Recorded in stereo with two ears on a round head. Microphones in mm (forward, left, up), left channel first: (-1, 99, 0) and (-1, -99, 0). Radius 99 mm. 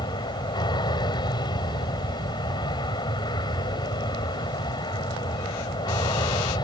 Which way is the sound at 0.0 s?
20° left (ahead or behind).